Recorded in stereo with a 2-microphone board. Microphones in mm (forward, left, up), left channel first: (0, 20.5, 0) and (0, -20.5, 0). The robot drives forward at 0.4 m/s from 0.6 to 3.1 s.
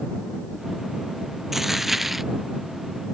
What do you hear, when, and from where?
1.5 s a dropped coin: 5° right (ahead or behind)